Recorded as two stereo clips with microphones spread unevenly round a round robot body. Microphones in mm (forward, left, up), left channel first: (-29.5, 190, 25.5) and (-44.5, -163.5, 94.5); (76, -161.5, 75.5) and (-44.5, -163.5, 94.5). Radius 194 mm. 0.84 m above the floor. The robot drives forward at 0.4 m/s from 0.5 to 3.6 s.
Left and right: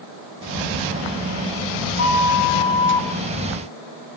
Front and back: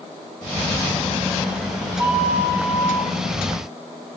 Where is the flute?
75° left, 0.8 m; by 3.1 s 115° left, 0.8 m.